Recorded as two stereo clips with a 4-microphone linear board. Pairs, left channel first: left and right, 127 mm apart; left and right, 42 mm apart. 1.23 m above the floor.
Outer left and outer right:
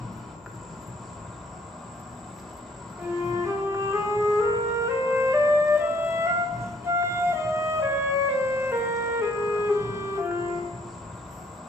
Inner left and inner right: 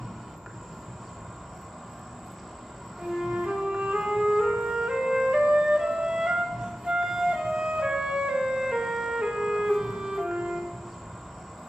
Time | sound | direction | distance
0.0 | an insect | centre (ahead or behind) | 0.9 m
3.0 | a flute | 20° right (ahead or behind) | 0.7 m